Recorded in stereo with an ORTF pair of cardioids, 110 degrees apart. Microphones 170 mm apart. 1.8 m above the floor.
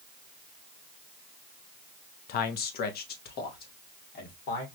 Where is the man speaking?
70° left, 0.6 m; by 4.7 s 65° left, 1.9 m.